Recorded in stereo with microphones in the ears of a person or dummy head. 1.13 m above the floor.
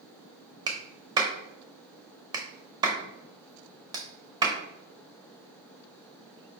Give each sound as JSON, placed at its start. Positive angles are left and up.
{"t": 0.7, "sound": "a clap", "side_deg": -15, "distance_m": 0.6}